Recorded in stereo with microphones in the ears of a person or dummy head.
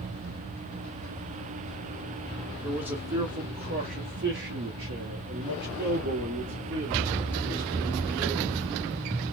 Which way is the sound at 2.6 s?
5° right (ahead or behind).